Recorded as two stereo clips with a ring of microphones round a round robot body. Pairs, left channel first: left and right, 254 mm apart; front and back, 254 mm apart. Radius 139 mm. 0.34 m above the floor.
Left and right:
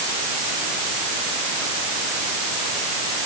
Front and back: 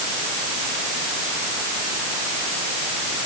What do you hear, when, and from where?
Only background noise.